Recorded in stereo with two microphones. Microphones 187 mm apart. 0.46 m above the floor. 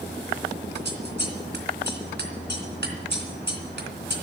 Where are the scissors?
70° right (ahead or behind), 2.5 m.